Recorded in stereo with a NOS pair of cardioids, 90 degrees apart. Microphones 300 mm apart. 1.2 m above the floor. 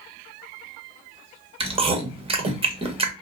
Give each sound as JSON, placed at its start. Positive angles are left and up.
{"t": 1.6, "sound": "chewing", "azimuth_deg": -20, "distance_m": 1.1}